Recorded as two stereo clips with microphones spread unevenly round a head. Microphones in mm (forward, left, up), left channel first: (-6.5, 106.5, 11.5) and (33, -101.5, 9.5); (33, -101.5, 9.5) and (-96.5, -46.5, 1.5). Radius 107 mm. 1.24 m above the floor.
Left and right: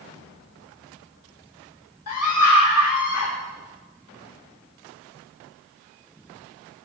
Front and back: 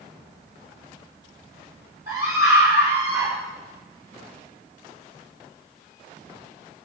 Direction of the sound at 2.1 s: 80° left.